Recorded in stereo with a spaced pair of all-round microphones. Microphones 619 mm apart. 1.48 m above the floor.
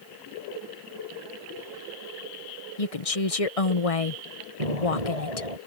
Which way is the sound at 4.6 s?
75° right (ahead or behind).